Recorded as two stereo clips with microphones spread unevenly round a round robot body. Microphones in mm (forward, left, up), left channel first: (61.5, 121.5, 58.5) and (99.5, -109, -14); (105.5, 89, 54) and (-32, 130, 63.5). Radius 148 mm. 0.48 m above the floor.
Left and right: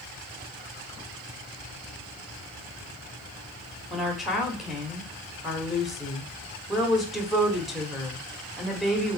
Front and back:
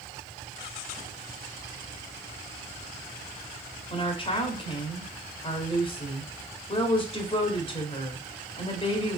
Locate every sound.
3.9 s a woman speaking: 15° right, 1.3 m